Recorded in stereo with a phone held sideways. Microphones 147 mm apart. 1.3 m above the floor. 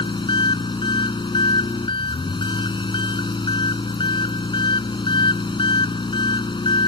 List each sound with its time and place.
0.0 s an engine running: 35° left (ahead or behind)